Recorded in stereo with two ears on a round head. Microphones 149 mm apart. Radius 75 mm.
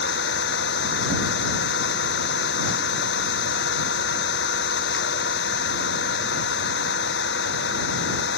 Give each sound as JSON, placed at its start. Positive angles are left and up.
{"t": 0.0, "sound": "an engine running", "side_deg": 80}